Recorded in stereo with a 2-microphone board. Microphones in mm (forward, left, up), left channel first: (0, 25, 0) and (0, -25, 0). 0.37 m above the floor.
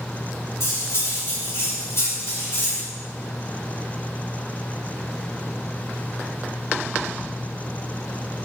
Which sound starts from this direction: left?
Cutlery clinking, at 0.6 s.